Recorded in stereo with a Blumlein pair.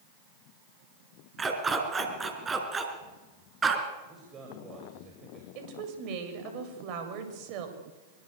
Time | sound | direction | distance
1.4 | a dog barking | 15° right | 4.5 m
4.1 | a man speaking | 25° right | 7 m
5.5 | a woman speaking | 40° right | 7.5 m